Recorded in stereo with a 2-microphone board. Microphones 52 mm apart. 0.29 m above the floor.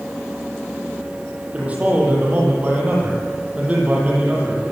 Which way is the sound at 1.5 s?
25° right (ahead or behind).